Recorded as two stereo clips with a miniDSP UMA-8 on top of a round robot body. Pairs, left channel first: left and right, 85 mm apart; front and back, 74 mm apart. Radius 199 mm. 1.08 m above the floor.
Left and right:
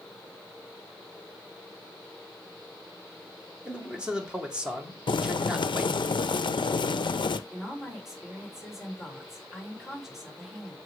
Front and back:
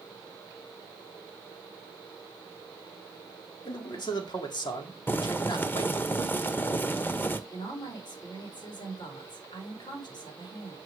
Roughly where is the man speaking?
Ahead.